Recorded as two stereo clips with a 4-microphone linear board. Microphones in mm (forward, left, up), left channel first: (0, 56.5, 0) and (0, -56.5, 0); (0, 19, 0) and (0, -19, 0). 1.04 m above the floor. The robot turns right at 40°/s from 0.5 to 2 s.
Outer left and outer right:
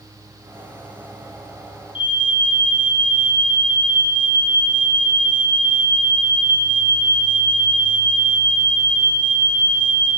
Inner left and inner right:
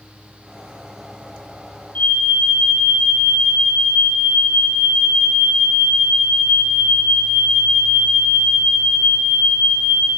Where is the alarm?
45° left (ahead or behind), 0.8 m; by 10.1 s 50° left (ahead or behind), 0.8 m.